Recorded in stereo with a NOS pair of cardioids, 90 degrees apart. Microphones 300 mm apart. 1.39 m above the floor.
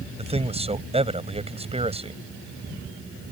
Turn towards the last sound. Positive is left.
turn(degrees=-20)